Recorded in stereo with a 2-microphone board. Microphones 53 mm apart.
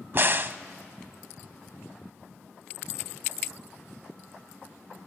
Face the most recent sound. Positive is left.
turn(degrees=-45)  # may be behind; listen again after turning